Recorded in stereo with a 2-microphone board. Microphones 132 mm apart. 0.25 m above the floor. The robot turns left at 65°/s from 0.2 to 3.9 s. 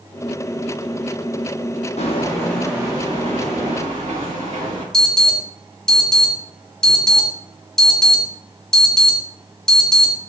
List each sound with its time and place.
2.0 s footsteps: 65° left (ahead or behind), 0.6 m; by 4.8 s 75° right (ahead or behind), 2.5 m
4.9 s an alarm: 5° left (ahead or behind), 0.9 m